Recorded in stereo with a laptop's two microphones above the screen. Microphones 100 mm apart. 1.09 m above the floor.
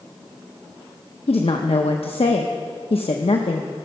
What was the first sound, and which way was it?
A woman speaking, 80° left.